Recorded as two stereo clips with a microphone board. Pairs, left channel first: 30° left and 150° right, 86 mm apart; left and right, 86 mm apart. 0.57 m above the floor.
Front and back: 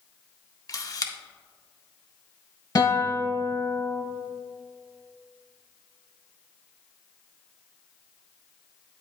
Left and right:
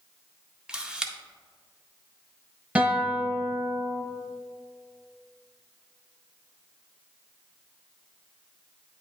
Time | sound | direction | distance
0.7 | a camera shutter | 10° right | 0.5 m
2.8 | a guitar | 10° right | 1.1 m